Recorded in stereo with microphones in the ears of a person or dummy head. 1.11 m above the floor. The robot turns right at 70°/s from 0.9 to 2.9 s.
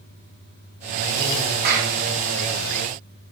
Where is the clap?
50° right (ahead or behind), 5.5 m; by 1.9 s 75° right (ahead or behind), 5.5 m.